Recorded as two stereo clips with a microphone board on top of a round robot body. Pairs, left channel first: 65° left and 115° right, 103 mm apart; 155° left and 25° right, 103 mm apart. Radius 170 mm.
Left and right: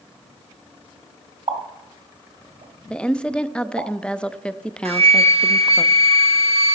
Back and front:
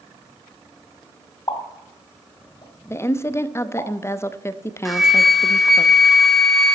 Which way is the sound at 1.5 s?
150° right.